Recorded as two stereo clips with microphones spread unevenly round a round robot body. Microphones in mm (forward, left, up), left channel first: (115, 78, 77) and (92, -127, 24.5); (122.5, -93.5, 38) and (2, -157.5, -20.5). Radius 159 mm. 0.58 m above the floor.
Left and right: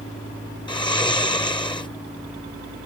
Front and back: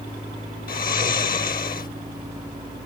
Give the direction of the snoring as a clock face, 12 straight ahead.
12 o'clock.